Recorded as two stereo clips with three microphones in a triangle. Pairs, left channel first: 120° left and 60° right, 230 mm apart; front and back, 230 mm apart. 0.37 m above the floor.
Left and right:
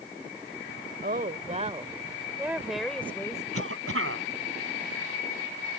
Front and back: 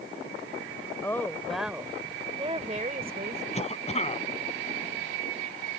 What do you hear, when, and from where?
1.0 s a woman speaking: 70° right; by 3.4 s 170° right
3.5 s a cough: 60° right